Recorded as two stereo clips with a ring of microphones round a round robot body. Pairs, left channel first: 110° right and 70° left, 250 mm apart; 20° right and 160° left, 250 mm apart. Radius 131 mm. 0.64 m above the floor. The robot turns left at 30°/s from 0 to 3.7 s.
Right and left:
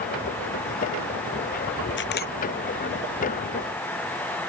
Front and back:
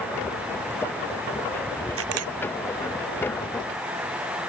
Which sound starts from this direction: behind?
A camera shutter, at 2.0 s.